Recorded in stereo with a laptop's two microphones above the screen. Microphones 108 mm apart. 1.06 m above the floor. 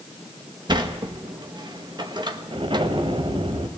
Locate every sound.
0.7 s a sliding door: 45° right (ahead or behind), 1.2 m
2.5 s an explosion: 55° right (ahead or behind), 1.6 m